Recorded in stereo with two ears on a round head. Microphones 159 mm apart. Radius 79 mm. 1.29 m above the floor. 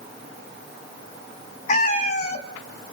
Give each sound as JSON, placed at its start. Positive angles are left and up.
{"t": 1.7, "sound": "a cat meowing", "side_deg": 45, "distance_m": 2.5}